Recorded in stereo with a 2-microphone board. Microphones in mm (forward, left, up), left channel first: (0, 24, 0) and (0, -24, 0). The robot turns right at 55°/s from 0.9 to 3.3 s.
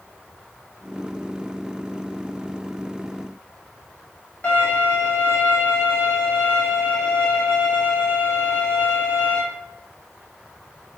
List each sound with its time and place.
4.4 s a violin: 40° left (ahead or behind), 0.9 m